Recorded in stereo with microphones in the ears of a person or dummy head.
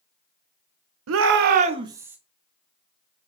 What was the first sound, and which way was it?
A shout, 75° right (ahead or behind).